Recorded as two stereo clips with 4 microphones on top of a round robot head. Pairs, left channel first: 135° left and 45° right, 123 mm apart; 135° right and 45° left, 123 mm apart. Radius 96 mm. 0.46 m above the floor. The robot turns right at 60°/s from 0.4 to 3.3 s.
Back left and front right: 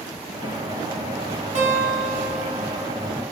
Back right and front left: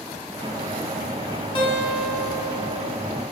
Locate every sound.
1.6 s a guitar: 85° right, 0.7 m; by 2.9 s straight ahead, 0.7 m